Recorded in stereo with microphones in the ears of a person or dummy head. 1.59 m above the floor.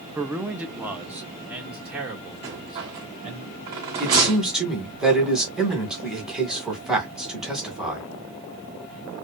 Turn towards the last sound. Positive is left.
turn(degrees=0)  # may be behind; listen again after turning